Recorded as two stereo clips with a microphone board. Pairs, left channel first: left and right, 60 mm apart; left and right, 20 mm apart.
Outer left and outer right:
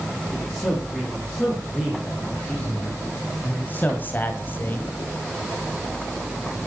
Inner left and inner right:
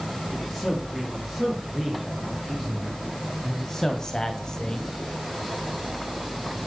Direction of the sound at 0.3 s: 20° left (ahead or behind).